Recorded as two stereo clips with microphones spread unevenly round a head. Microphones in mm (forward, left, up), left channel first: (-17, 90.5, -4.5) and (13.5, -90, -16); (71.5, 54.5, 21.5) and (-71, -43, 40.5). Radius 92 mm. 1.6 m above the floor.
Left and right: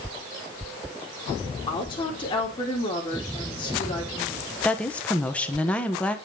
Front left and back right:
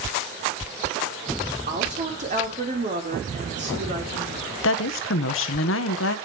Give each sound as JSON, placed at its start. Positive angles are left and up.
{"t": 1.7, "sound": "a woman speaking", "azimuth_deg": 165, "distance_m": 2.5}
{"t": 4.6, "sound": "a woman speaking", "azimuth_deg": 15, "distance_m": 1.1}